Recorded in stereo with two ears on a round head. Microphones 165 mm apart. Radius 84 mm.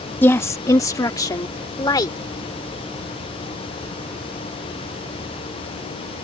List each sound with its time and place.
0.2 s a woman speaking: 10° left (ahead or behind); by 2.2 s 20° left (ahead or behind)